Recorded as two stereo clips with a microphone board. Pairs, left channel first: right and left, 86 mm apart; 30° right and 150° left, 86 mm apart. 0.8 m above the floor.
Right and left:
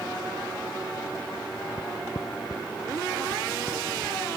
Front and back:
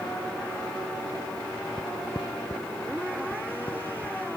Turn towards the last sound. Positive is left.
turn(degrees=-35)